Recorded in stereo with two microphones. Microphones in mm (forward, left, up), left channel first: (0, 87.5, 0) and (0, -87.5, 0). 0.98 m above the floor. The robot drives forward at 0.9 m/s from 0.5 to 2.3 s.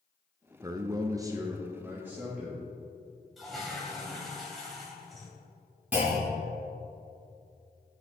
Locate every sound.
0.6 s a man speaking: 20° right (ahead or behind), 0.7 m; by 2.6 s 10° right (ahead or behind), 1.4 m
3.4 s a toilet flushing: centre (ahead or behind), 2 m
5.9 s a clunk: 10° right (ahead or behind), 3 m